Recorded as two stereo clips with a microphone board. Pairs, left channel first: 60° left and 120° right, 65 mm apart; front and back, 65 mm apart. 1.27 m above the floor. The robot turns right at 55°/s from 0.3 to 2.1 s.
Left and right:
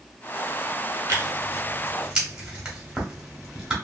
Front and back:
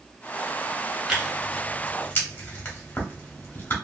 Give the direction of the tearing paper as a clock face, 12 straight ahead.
3 o'clock.